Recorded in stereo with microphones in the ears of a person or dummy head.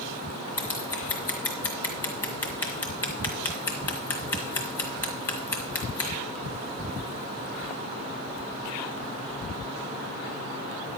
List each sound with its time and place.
0.6 s scissors: 15° left (ahead or behind), 1.7 m